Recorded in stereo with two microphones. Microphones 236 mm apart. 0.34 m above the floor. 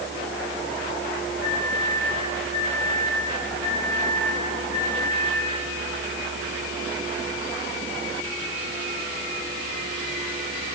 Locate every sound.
1.4 s a microwave: 40° left (ahead or behind), 8.5 m